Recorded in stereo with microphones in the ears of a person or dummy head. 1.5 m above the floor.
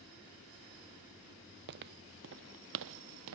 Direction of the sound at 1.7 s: 55° right (ahead or behind).